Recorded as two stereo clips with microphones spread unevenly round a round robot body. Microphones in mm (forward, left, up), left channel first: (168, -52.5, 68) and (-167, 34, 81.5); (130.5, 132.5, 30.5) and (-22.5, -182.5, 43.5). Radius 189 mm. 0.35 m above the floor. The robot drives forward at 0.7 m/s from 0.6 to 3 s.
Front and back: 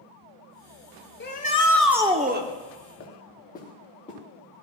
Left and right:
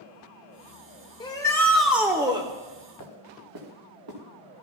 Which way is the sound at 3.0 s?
80° right.